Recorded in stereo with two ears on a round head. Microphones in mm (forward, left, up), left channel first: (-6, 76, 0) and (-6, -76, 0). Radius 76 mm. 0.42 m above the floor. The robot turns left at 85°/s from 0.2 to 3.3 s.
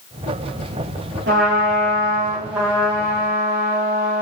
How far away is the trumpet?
About 5.5 m.